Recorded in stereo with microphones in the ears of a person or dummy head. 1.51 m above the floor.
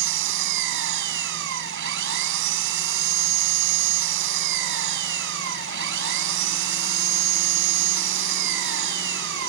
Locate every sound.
0.0 s an engine running: 70° right (ahead or behind)